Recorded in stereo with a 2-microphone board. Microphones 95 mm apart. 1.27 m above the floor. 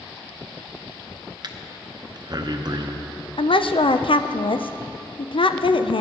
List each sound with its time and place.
1.4 s breathing: 45° right (ahead or behind), 0.7 m
3.4 s a woman speaking: 65° left (ahead or behind), 0.5 m